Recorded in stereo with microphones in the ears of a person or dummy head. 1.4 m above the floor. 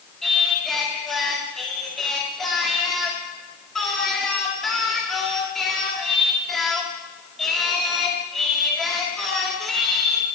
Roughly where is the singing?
Centre.